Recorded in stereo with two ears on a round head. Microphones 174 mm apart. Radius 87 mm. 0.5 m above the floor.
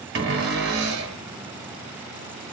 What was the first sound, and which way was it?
A cupboard door, 65° right (ahead or behind).